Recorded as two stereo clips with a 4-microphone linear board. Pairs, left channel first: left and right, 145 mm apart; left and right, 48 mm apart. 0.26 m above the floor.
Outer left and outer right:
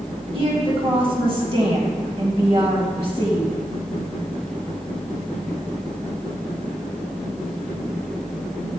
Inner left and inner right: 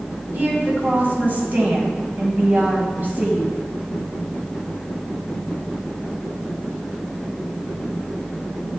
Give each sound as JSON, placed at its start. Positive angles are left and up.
{"t": 0.3, "sound": "a woman speaking", "side_deg": -40, "distance_m": 1.7}